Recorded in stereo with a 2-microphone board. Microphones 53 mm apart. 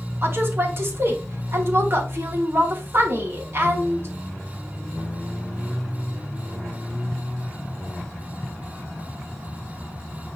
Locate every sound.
0.2 s a woman speaking: 50° right (ahead or behind), 2.5 m